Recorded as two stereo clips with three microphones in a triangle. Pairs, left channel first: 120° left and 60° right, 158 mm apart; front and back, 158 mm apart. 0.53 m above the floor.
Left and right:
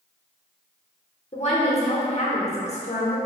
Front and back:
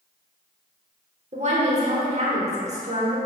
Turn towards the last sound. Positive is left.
turn(degrees=150)